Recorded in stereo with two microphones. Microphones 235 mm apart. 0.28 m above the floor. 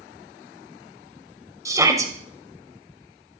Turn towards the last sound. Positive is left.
turn(degrees=-15)  # may be behind; listen again after turning